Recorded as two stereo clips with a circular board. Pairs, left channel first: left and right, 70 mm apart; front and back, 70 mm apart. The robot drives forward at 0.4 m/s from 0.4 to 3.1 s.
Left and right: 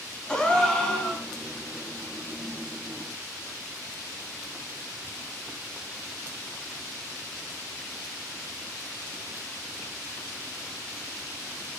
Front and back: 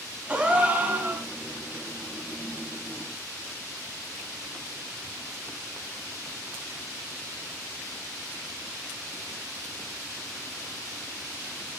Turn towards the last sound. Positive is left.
turn(degrees=165)